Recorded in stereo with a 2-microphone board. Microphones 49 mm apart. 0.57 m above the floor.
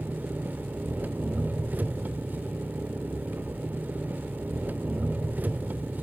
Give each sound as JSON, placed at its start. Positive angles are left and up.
{"t": 0.0, "sound": "an engine running", "side_deg": -35, "distance_m": 0.8}